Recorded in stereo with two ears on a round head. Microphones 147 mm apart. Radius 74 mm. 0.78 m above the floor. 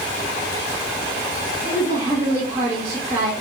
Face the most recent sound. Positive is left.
turn(degrees=-20)  # may be behind; listen again after turning